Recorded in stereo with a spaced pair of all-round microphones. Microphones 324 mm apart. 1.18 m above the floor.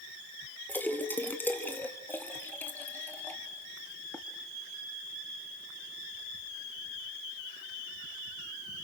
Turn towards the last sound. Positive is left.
turn(degrees=5)  # may be behind; listen again after turning